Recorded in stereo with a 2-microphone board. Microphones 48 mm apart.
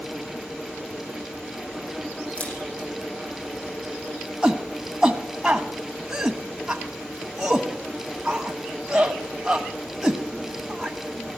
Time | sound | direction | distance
2.4 | a camera shutter | 25° left (ahead or behind) | 9 m
4.4 | a shout | 15° right (ahead or behind) | 1.1 m